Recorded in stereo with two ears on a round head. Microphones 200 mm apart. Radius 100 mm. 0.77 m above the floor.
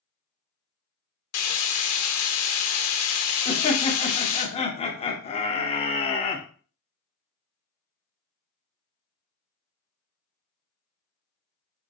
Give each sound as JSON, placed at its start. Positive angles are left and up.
{"t": 1.3, "sound": "frying", "side_deg": 75, "distance_m": 0.8}
{"t": 3.5, "sound": "laughter", "side_deg": 25, "distance_m": 0.9}